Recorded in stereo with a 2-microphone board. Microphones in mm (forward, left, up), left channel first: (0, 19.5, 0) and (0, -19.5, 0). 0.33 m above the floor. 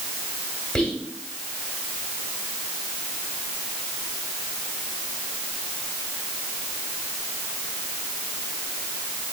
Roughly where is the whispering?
Centre.